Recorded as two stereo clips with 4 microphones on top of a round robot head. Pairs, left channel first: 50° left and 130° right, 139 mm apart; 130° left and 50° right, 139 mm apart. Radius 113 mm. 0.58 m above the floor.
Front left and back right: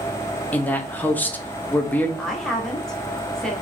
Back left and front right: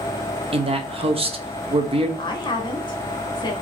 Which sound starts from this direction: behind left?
A woman speaking, at 2.2 s.